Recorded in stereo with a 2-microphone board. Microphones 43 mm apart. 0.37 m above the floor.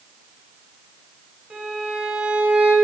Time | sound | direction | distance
1.5 | a violin | 20° right (ahead or behind) | 1.8 m